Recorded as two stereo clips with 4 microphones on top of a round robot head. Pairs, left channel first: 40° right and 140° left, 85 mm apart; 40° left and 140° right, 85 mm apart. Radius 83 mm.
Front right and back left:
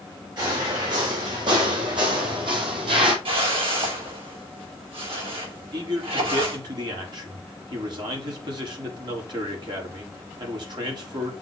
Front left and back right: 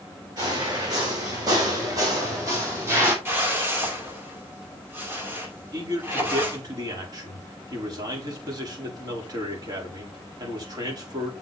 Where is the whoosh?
155° left, 4.5 m.